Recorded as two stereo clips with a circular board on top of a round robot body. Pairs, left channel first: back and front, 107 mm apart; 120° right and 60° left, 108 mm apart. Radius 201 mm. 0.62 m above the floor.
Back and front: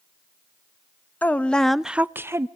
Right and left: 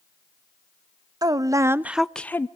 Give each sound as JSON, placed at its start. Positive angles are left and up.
{"t": 1.2, "sound": "a woman speaking", "azimuth_deg": 105, "distance_m": 0.9}